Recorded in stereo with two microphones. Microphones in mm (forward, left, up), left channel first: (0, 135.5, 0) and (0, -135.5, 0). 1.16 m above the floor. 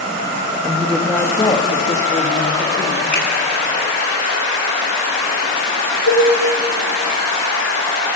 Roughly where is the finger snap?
Left.